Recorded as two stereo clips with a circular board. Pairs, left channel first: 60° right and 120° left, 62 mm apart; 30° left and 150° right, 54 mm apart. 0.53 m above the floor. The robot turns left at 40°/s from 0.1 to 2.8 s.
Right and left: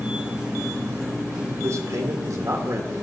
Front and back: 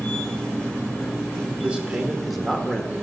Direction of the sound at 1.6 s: 150° left.